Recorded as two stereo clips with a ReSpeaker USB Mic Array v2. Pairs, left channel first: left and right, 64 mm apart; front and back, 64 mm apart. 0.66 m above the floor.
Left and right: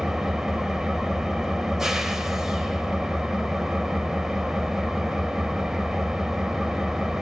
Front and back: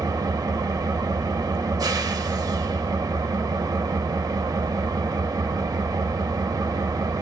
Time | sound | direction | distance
0.0 | an engine running | 175° right | 0.7 m